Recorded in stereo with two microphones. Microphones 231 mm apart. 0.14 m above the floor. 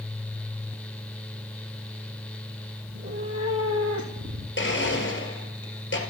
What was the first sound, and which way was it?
A cat meowing, 70° right (ahead or behind).